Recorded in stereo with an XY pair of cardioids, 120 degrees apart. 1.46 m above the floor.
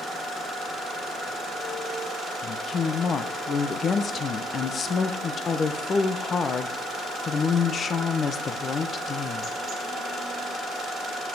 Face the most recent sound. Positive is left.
turn(degrees=40)